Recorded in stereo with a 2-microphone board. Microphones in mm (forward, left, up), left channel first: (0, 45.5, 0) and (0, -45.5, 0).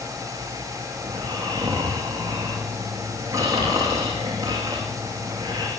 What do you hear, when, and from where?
1.0 s snoring: 35° right (ahead or behind), 7 m